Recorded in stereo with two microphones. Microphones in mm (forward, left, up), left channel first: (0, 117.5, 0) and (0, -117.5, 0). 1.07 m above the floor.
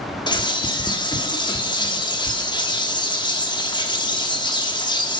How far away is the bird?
About 1.5 m.